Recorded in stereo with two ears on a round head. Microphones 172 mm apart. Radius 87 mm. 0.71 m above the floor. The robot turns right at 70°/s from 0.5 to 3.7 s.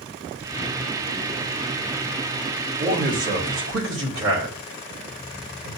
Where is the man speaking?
30° right (ahead or behind), 4 m; by 5.7 s 75° right (ahead or behind), 4 m.